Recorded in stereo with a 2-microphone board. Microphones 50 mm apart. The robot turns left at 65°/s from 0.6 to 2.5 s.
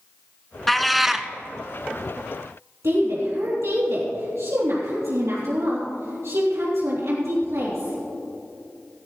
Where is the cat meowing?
5° left (ahead or behind), 0.6 m; by 1.3 s 10° right (ahead or behind), 0.6 m.